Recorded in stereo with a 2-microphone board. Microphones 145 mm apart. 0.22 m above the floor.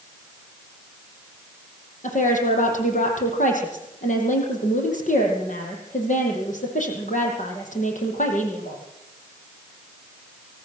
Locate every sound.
2.0 s a woman speaking: 65° left (ahead or behind), 8 m